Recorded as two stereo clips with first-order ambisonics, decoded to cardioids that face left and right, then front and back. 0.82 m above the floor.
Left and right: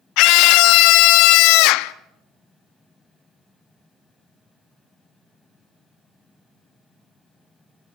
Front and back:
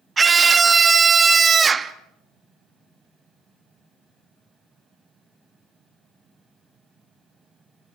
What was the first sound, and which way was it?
A scream, 110° left.